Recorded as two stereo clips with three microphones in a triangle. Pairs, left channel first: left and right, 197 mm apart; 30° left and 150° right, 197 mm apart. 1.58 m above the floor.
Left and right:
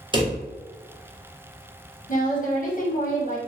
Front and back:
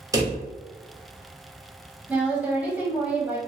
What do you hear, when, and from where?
0.1 s a drawer: 105° right, 0.7 m
2.1 s a woman speaking: 130° left, 0.6 m